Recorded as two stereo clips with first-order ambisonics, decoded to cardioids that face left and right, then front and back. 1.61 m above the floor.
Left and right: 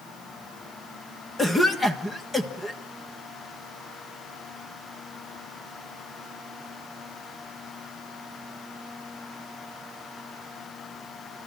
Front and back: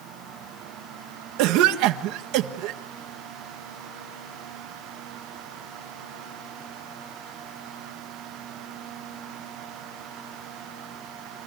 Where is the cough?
170° left, 1.5 m.